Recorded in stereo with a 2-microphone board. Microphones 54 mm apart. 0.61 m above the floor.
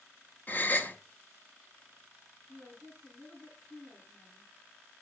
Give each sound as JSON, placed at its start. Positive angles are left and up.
{"t": 0.5, "sound": "a gasp", "side_deg": 30, "distance_m": 0.8}
{"t": 2.5, "sound": "a woman speaking", "side_deg": 15, "distance_m": 7.5}